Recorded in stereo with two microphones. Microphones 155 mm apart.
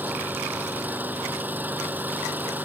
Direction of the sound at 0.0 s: 10° right (ahead or behind).